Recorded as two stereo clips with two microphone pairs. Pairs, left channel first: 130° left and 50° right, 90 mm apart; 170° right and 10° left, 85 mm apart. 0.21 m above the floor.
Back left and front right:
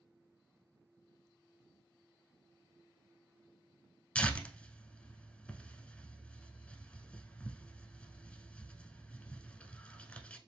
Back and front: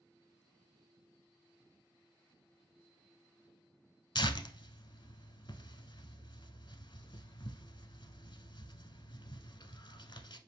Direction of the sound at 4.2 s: 155° right.